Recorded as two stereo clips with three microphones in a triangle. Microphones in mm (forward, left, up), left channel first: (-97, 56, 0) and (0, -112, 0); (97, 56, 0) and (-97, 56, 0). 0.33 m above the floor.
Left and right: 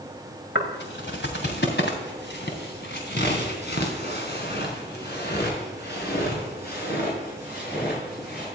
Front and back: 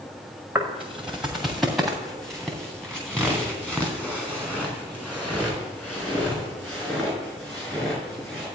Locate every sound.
0.6 s footsteps: 95° left, 2.0 m; by 8.5 s 80° left, 7 m